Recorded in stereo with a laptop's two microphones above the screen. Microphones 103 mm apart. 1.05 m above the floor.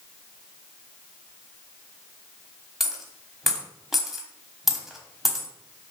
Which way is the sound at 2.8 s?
Centre (ahead or behind).